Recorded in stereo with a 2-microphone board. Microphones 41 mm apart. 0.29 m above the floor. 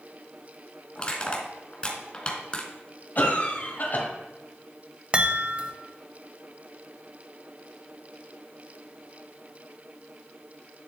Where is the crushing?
25° left (ahead or behind), 1.9 m.